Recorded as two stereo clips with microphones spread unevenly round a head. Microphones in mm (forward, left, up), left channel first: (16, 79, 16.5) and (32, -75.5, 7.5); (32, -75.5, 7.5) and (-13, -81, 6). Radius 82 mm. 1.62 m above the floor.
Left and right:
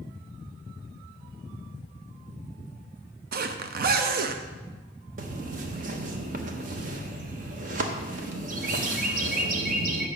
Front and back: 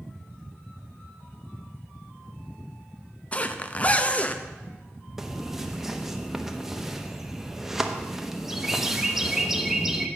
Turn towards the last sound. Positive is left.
turn(degrees=-95)